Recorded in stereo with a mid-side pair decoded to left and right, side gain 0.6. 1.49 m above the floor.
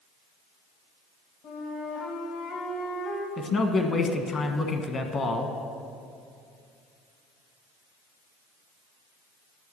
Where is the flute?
60° left, 1.9 m.